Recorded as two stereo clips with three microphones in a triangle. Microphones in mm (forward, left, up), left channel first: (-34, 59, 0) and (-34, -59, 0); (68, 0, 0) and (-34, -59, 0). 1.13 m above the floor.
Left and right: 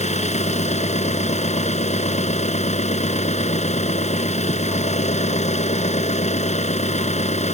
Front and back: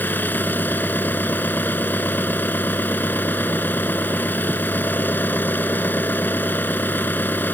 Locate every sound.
0.0 s an engine running: 105° left